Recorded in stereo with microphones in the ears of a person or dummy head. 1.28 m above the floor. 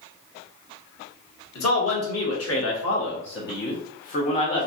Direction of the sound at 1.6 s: 80° left.